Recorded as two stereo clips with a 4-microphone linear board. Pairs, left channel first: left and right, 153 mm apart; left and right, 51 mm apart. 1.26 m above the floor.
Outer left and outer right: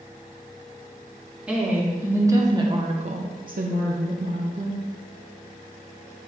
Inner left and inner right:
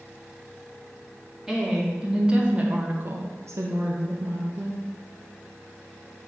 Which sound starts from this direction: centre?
A woman speaking, at 1.5 s.